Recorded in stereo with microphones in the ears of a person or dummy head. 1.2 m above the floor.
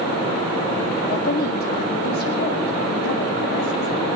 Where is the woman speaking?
55° left (ahead or behind), 2.0 m.